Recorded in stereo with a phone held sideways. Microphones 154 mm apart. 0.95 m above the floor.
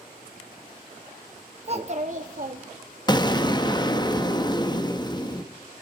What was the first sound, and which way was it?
A child speaking, 40° right (ahead or behind).